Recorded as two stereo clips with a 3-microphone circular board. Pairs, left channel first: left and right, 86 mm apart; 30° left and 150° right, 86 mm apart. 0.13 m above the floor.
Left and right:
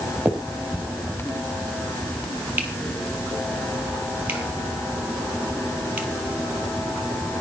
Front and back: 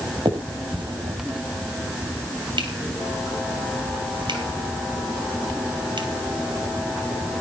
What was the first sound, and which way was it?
A finger snap, 160° right.